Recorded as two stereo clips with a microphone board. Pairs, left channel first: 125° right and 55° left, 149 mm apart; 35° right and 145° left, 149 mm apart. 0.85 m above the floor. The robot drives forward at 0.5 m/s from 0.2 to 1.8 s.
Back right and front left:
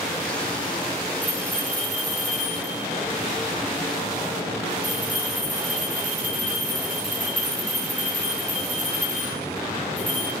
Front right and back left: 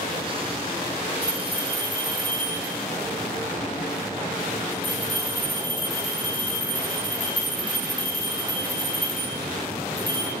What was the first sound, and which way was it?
A bell, 85° left.